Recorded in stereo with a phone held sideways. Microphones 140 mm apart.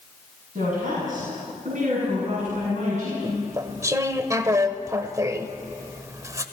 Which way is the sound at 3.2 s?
25° right (ahead or behind).